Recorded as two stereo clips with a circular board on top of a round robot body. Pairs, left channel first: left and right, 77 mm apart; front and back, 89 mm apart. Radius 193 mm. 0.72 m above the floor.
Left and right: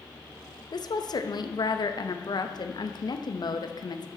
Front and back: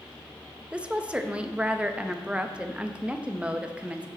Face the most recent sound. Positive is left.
turn(degrees=105)